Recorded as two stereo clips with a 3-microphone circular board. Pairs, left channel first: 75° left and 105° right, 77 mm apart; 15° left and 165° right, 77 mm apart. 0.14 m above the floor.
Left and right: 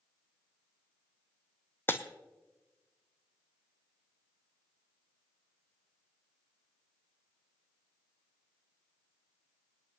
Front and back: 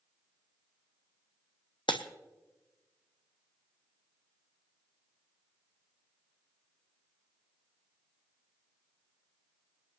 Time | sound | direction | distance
1.9 | breaking glass | 10° left | 1.0 m